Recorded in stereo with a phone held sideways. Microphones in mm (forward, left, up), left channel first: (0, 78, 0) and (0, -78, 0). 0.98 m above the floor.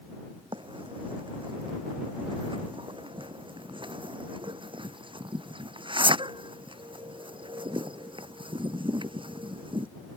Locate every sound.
0.5 s a bird: 35° right (ahead or behind)